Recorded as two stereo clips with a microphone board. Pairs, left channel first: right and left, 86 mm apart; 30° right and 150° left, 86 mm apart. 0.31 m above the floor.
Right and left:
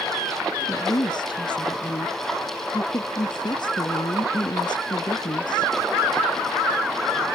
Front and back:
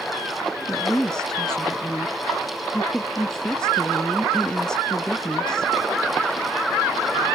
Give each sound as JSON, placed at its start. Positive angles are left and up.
{"t": 0.7, "sound": "a woman speaking", "azimuth_deg": -110}